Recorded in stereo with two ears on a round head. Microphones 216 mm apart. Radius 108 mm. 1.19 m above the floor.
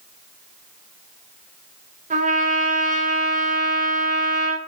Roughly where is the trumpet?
Right.